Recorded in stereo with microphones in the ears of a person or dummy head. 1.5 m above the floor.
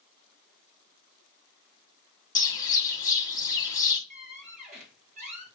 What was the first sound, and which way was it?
A bird, 20° left (ahead or behind).